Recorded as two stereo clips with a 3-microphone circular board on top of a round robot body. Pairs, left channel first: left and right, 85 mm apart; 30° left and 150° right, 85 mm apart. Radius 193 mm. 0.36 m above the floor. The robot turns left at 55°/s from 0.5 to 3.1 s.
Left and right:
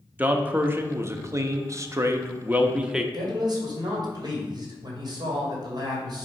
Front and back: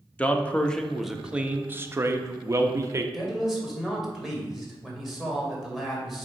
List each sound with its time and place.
0.2 s a man speaking: 35° right, 0.9 m; by 3.0 s 175° right, 0.9 m
3.1 s a man speaking: 60° right, 2.5 m